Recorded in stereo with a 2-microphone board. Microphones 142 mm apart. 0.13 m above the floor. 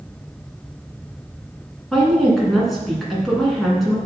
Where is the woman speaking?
Centre (ahead or behind), 1.7 m.